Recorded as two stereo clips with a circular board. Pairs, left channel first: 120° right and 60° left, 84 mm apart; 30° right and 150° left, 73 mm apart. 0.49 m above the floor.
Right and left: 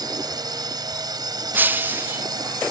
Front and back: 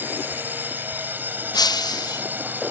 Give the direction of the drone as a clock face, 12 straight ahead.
9 o'clock.